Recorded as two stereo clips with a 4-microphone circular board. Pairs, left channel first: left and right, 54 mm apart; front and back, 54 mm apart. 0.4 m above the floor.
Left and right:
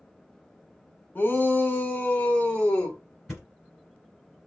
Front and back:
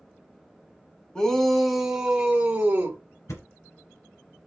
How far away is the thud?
About 2.0 m.